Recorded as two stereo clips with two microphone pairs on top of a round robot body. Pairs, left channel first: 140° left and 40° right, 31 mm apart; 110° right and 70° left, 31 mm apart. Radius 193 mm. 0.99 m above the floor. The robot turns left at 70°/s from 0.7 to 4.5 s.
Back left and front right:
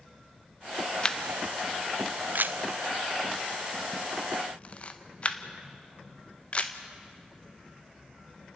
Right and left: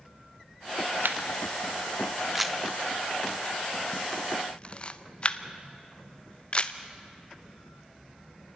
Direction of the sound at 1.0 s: 75° left.